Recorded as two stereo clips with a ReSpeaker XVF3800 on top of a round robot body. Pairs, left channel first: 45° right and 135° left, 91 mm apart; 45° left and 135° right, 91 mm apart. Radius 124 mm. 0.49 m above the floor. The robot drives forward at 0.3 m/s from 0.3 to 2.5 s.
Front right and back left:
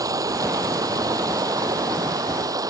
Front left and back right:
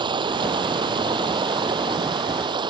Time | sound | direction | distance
0.0 | running water | 170° right | ?